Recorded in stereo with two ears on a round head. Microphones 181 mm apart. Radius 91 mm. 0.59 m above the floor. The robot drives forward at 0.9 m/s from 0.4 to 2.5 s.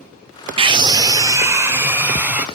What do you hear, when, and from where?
0.6 s a scream: 25° right (ahead or behind), 0.9 m; by 2.5 s 10° right (ahead or behind), 2.5 m